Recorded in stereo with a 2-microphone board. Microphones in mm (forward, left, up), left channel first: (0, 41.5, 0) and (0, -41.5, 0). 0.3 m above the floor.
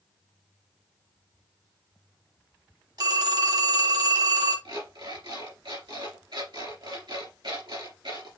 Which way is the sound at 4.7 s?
70° right (ahead or behind).